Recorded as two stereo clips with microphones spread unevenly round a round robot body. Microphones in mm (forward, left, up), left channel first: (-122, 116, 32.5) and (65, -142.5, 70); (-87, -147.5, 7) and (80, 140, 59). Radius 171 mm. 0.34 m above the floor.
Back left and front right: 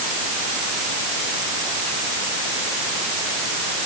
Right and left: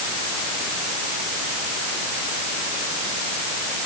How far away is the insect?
I don't hear an insect.